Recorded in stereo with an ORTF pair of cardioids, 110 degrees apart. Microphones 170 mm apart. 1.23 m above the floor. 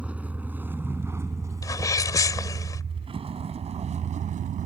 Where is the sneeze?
20° left.